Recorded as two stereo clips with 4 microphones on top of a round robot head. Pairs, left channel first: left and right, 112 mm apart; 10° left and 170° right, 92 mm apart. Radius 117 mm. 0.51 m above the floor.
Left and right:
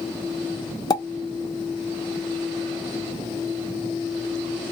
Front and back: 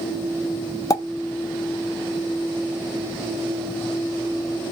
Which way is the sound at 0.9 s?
50° left.